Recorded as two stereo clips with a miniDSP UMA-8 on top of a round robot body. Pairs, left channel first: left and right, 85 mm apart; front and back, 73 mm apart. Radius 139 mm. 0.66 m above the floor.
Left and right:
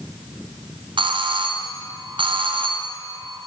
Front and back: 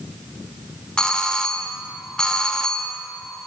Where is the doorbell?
80° right, 3.5 m.